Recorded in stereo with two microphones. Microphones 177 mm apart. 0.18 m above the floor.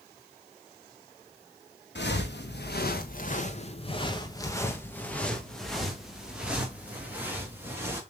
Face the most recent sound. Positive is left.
turn(degrees=-15)  # may be behind; listen again after turning